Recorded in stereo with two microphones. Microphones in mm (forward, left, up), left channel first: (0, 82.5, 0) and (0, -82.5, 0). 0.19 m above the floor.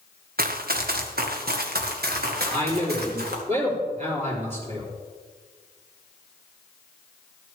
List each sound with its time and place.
0.4 s running footsteps: 65° right (ahead or behind), 1.3 m; by 3.4 s 75° right (ahead or behind), 3.5 m
2.5 s a man speaking: 50° right (ahead or behind), 4.5 m